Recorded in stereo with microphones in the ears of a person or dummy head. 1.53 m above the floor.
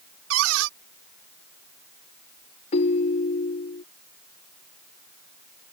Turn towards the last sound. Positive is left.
turn(degrees=35)  # may be behind; listen again after turning